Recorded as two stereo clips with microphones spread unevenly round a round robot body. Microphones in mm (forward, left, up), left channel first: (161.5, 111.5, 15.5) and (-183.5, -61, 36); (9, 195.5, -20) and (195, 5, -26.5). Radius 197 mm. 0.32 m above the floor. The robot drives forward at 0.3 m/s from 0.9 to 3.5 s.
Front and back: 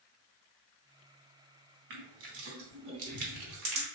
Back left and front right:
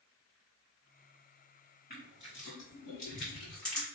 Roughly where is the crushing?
Behind.